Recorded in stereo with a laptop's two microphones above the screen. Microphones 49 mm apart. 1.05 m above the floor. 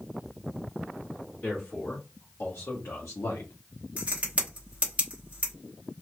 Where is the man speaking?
45° left (ahead or behind), 1.5 m; by 3.5 s 75° left (ahead or behind), 0.6 m.